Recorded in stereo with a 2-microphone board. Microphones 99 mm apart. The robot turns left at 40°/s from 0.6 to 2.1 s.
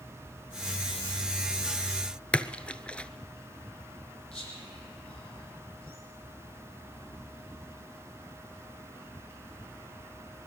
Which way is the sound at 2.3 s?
10° left (ahead or behind).